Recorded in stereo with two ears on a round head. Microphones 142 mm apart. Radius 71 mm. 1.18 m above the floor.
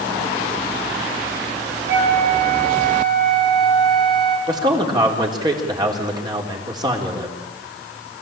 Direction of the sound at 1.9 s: 80° right.